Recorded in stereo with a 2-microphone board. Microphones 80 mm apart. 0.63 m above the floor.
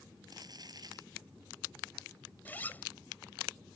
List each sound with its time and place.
0.3 s crumpling: 50° right (ahead or behind)
2.5 s a zipper: 20° left (ahead or behind)